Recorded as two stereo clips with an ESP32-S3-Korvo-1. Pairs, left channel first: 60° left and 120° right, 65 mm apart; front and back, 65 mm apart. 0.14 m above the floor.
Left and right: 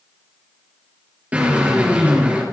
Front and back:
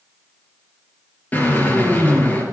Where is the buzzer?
I don't hear a buzzer.